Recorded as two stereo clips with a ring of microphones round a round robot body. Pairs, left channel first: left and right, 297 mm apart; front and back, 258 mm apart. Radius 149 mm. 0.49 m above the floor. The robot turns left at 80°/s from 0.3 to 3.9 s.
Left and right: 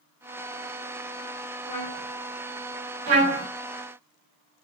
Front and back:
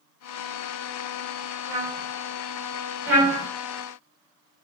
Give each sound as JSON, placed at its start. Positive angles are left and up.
{"t": 1.7, "sound": "a trumpet", "azimuth_deg": 170, "distance_m": 2.0}
{"t": 3.1, "sound": "a trumpet", "azimuth_deg": -95, "distance_m": 1.5}